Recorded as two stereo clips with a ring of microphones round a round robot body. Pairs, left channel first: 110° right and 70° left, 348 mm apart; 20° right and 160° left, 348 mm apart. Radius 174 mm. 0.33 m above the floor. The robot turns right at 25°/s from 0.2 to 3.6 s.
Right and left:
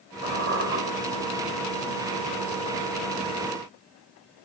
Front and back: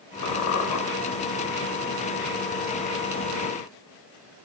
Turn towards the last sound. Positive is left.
turn(degrees=85)